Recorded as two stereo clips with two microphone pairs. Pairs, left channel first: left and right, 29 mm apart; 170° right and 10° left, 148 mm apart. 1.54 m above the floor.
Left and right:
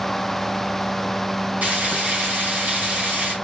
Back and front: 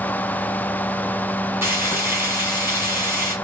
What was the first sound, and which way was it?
Frying, 65° right.